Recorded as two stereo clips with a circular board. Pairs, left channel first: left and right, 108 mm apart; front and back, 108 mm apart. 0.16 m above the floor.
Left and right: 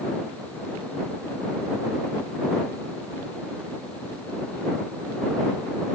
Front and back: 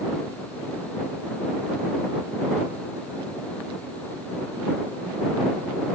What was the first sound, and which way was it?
Only background noise.